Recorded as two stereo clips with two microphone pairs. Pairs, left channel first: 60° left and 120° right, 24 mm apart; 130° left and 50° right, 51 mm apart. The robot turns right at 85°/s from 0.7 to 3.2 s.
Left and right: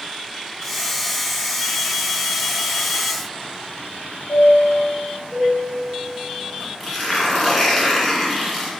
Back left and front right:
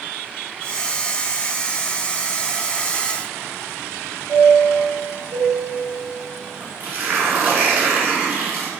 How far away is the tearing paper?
About 1.2 m.